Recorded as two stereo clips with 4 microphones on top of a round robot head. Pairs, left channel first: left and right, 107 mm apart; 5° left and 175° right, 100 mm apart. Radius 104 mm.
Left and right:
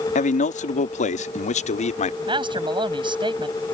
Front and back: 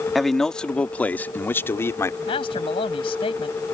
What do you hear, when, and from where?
0.1 s a man speaking: 95° left; by 2.2 s 70° left
2.3 s a man speaking: 45° right